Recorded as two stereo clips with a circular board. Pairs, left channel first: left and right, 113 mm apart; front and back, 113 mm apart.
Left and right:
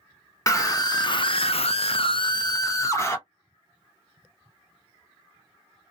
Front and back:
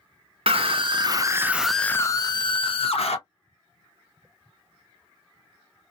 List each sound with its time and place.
0.5 s a scream: 150° left, 0.9 m; by 3.2 s 25° left, 1.0 m